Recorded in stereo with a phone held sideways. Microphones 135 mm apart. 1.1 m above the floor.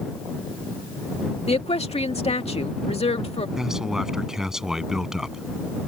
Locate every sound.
1.5 s a woman speaking: 50° left (ahead or behind)
3.6 s a man speaking: 5° right (ahead or behind)